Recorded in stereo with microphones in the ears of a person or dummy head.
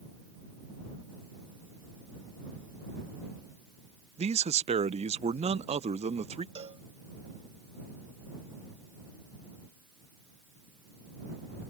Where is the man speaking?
30° right (ahead or behind).